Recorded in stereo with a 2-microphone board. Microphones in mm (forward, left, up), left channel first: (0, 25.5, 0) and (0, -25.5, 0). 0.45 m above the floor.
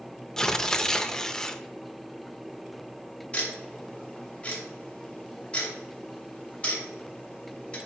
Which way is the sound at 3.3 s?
25° left (ahead or behind).